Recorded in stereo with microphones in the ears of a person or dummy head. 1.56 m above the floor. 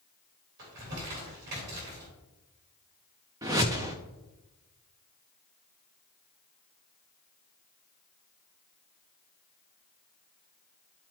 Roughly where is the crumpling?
Right.